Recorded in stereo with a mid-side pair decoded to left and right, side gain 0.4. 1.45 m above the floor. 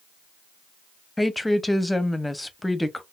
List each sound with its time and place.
1.2 s a woman speaking: 10° left, 0.6 m